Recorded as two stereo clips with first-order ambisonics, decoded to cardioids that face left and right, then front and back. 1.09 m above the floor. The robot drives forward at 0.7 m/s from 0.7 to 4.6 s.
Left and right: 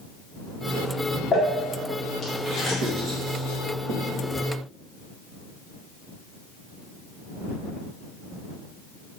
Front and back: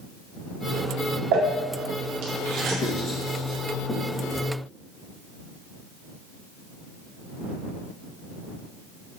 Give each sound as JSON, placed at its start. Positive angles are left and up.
{"t": 1.3, "sound": "crumpling", "azimuth_deg": 155, "distance_m": 0.9}
{"t": 2.8, "sound": "writing", "azimuth_deg": -55, "distance_m": 1.9}